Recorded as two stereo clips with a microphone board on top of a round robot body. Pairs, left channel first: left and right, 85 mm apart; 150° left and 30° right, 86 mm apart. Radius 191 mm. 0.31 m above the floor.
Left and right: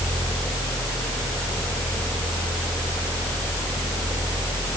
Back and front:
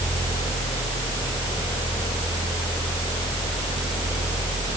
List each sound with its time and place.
Only background noise.